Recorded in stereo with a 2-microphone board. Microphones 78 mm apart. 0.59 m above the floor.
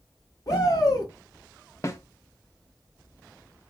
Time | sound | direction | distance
0.5 | a shout | 45° left (ahead or behind) | 1.2 m
1.8 | a snare drum | 40° left (ahead or behind) | 0.9 m